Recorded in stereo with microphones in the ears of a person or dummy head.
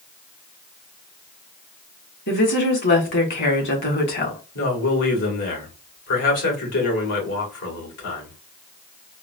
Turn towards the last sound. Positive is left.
turn(degrees=65)  # may be behind; listen again after turning